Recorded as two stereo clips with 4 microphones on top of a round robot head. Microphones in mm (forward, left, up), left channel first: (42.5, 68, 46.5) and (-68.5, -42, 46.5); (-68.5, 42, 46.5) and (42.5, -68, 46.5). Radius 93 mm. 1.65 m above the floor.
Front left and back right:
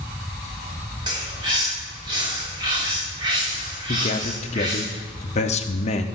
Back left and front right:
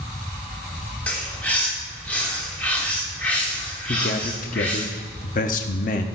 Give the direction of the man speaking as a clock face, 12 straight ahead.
9 o'clock.